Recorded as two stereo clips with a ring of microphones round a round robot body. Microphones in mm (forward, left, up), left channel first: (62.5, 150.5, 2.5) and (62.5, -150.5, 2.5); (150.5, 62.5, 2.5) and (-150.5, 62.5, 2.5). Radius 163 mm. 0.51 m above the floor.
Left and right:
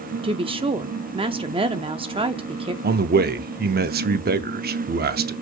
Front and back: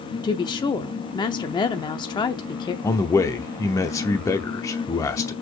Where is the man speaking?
70° right, 0.7 m.